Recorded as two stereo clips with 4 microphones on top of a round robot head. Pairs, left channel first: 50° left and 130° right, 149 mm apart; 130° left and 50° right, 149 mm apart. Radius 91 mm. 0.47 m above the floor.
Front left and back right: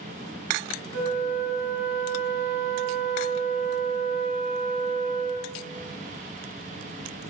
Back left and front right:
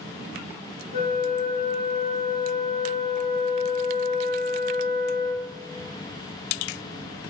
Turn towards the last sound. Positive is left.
turn(degrees=150)